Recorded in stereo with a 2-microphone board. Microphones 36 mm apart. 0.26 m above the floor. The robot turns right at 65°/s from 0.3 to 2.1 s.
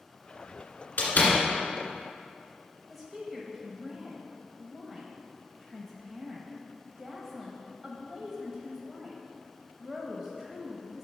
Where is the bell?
No bell in this recording.